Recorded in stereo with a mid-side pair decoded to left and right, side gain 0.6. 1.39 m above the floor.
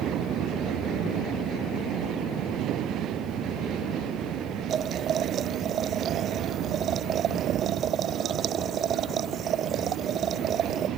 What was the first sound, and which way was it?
Boiling, 45° right.